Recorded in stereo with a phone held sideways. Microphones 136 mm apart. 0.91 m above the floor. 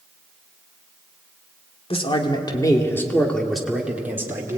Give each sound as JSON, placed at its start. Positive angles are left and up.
{"t": 1.9, "sound": "a man speaking", "side_deg": 45, "distance_m": 2.5}